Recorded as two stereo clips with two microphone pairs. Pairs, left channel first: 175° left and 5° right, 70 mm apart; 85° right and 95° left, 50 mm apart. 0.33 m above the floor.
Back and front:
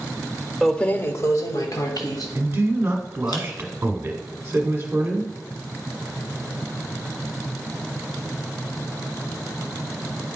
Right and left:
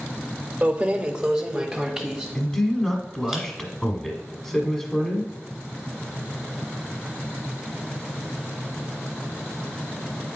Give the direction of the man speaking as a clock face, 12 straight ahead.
12 o'clock.